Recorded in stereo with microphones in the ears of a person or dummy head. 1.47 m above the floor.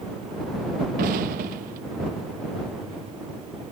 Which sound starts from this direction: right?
An explosion, at 1.0 s.